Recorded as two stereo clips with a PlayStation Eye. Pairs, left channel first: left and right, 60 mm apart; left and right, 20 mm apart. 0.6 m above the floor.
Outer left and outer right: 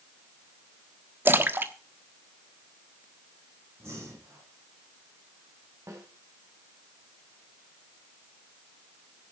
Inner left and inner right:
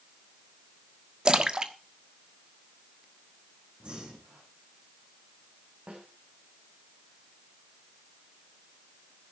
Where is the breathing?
50° right (ahead or behind), 8.5 m.